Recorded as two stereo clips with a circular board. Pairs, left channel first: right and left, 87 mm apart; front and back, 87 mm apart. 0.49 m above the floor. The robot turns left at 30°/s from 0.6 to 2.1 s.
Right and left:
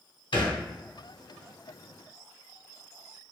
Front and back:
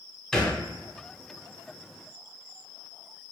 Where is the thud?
85° right, 1.0 m.